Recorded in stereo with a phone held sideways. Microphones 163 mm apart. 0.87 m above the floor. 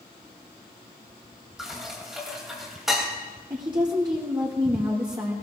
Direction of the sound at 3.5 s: 30° right (ahead or behind).